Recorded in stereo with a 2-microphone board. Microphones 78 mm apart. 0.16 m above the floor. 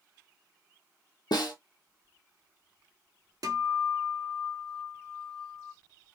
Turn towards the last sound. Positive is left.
turn(degrees=-55)  # may be behind; listen again after turning